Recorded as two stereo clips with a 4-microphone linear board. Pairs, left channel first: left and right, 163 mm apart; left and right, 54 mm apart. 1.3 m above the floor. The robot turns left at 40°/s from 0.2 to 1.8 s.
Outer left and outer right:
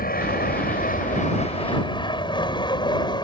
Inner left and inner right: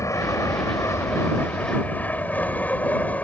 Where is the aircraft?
75° left (ahead or behind); by 3.2 s 30° left (ahead or behind).